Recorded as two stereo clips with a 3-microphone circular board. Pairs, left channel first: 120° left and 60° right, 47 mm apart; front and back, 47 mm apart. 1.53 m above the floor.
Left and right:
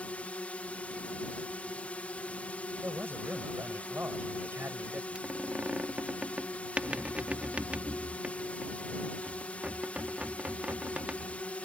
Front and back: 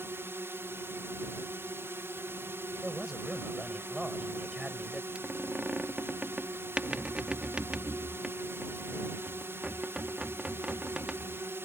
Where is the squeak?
120° right.